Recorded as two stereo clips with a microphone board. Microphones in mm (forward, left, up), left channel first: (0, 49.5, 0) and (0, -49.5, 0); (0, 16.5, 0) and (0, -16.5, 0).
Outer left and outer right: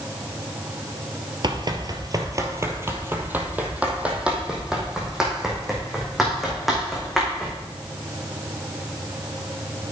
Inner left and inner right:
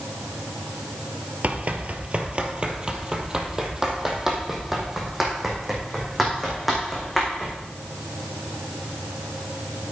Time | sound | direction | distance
1.4 | running footsteps | 50° right (ahead or behind) | 1.1 m